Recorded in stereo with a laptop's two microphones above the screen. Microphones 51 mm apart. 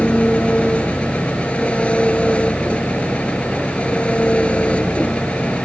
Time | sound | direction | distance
0.0 | an engine running | 25° left (ahead or behind) | ?